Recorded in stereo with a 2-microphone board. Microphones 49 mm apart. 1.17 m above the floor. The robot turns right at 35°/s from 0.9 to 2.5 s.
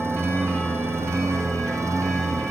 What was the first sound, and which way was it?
A lawn mower, 125° right.